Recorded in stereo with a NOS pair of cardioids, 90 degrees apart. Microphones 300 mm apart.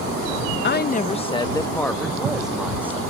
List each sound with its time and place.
0.6 s a woman speaking: 35° left; by 3.0 s 5° right